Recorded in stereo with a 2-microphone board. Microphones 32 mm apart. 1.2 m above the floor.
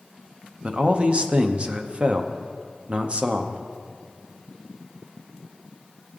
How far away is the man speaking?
About 0.7 m.